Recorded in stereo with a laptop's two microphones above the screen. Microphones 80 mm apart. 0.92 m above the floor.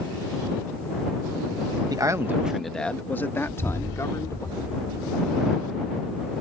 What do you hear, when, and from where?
1.9 s a man speaking: 50° right (ahead or behind); by 4.5 s 40° left (ahead or behind)
3.5 s an explosion: 80° right